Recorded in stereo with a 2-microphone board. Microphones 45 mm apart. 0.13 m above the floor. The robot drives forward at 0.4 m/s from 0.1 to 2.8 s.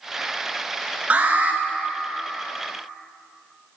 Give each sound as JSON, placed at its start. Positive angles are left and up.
{"t": 1.1, "sound": "an alarm", "side_deg": -30, "distance_m": 1.1}